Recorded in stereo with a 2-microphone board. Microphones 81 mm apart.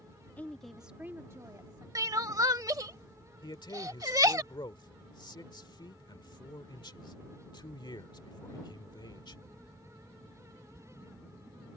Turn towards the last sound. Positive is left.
turn(degrees=65)  # may be behind; listen again after turning